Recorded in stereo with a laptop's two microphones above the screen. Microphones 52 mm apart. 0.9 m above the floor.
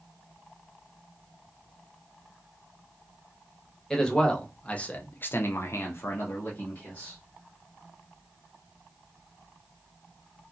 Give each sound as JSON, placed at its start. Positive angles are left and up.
{"t": 3.9, "sound": "a man speaking", "side_deg": 10, "distance_m": 1.1}